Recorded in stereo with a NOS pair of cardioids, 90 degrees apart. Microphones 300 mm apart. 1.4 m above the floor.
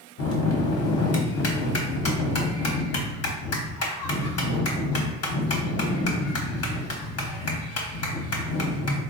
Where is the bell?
55° left, 1.0 m.